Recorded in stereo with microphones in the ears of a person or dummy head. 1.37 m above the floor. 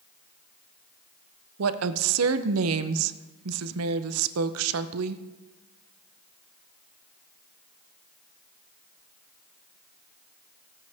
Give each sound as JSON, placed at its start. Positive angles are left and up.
{"t": 1.6, "sound": "a woman speaking", "side_deg": -90, "distance_m": 0.7}